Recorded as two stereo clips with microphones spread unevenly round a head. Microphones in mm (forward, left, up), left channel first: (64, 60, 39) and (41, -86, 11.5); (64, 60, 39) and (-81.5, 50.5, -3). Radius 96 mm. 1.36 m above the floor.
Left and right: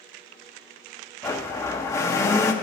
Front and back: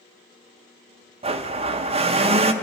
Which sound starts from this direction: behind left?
A blender, at 1.2 s.